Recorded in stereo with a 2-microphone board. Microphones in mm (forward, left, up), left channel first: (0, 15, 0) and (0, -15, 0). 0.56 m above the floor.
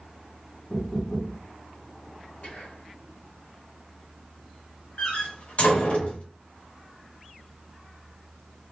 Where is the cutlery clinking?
I don't hear cutlery clinking.